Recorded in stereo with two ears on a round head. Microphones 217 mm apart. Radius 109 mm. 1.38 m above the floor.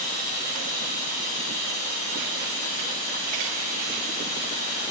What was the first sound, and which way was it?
Running water, 35° right (ahead or behind).